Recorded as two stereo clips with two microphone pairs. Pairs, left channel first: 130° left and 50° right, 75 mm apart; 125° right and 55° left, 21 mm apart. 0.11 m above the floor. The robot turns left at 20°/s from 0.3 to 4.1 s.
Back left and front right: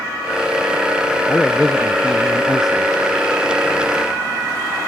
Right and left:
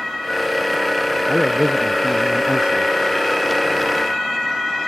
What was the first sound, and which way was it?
A man speaking, 65° left.